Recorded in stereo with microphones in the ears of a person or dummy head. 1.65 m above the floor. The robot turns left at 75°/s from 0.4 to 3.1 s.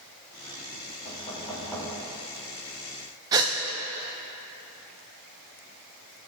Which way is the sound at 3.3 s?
20° right (ahead or behind).